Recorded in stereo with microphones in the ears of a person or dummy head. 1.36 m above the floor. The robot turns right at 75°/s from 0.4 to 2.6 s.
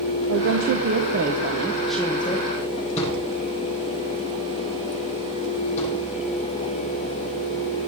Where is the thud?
35° left (ahead or behind), 6.5 m.